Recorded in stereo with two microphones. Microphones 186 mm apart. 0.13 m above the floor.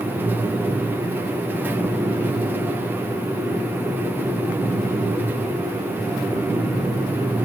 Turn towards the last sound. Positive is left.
No sound to turn to.